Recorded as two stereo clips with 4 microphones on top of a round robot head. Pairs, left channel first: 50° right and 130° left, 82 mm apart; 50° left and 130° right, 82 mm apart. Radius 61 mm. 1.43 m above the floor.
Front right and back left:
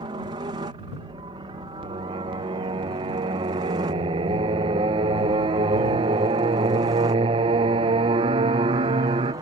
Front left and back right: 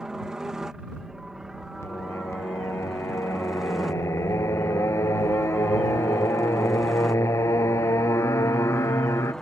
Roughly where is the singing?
Left.